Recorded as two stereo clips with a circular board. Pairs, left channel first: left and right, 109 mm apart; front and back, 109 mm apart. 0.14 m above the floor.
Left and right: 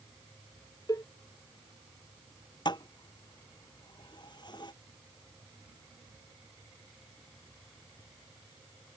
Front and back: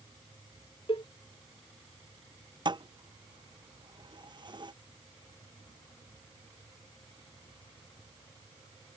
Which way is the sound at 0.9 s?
35° left.